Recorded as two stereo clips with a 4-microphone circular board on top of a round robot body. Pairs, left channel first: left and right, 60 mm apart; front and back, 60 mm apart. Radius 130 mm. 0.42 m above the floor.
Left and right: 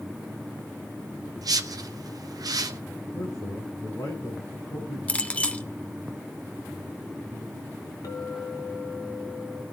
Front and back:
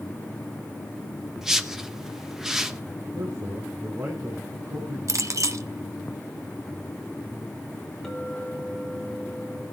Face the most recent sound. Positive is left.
turn(degrees=85)